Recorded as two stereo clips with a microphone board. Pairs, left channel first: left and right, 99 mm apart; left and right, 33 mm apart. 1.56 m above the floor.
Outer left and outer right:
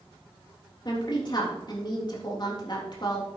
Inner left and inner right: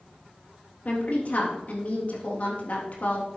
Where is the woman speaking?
45° left (ahead or behind), 3.5 m.